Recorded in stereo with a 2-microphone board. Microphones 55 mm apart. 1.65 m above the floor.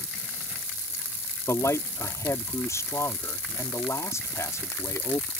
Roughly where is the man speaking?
Left.